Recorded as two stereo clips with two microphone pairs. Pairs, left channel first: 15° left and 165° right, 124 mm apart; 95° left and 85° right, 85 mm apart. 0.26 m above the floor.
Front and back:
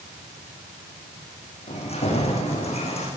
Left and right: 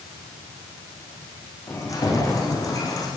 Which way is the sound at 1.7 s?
45° left.